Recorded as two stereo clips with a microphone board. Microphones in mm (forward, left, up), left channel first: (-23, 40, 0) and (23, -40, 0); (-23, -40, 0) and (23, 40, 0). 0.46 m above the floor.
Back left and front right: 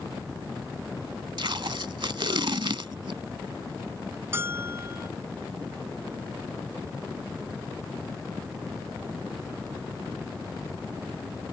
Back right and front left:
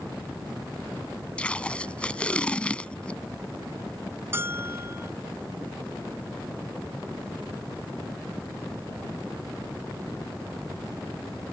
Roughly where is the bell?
Ahead.